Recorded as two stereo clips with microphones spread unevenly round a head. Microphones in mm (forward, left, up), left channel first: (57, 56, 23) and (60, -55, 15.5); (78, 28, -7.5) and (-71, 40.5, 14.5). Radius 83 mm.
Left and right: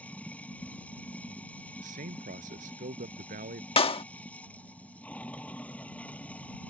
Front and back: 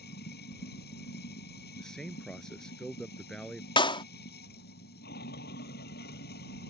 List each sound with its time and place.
0.0 s running water: 15° left
1.8 s a man speaking: 90° right
3.8 s a clap: 55° left